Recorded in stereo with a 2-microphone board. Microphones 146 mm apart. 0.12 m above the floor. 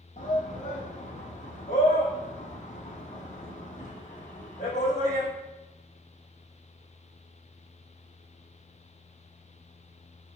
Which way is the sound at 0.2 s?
55° left (ahead or behind).